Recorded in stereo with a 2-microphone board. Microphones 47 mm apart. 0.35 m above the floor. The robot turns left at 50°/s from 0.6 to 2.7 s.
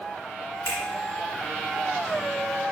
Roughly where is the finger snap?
Left.